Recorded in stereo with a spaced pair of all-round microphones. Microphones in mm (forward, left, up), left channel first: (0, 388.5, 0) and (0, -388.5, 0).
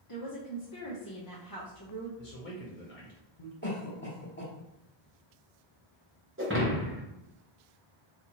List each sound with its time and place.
0.1 s a woman speaking: 30° left (ahead or behind), 0.7 m
2.2 s a man speaking: 70° left (ahead or behind), 1.0 m
3.6 s a cough: 15° left (ahead or behind), 1.5 m
6.4 s breaking glass: 15° right (ahead or behind), 0.8 m